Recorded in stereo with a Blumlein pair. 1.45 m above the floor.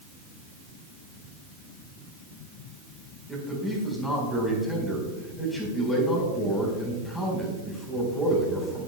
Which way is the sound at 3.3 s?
10° left.